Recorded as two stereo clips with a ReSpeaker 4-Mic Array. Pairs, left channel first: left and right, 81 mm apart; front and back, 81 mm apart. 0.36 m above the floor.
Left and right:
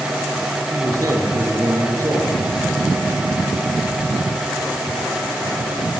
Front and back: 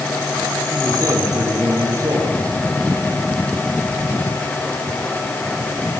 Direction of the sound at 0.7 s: 135° right.